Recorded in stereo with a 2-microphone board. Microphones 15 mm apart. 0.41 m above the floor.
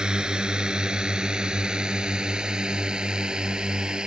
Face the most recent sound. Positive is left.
turn(degrees=-75)  # may be behind; listen again after turning